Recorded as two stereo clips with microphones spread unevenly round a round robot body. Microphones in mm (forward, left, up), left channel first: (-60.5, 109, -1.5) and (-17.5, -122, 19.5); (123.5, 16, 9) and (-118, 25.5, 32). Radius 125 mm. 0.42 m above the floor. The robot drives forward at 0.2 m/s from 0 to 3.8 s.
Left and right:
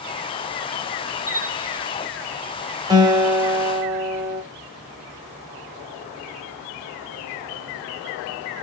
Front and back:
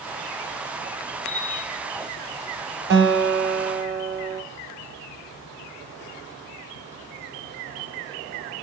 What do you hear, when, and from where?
1.3 s a bell: 45° left, 1.6 m; by 1.8 s 50° left, 1.5 m
2.9 s a guitar: 150° right, 1.0 m; by 4.4 s 155° right, 1.1 m